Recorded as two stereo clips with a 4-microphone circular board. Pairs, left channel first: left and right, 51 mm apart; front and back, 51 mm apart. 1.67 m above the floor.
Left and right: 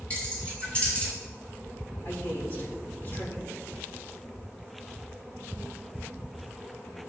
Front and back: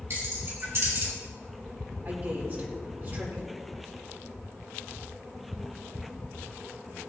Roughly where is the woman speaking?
Behind left.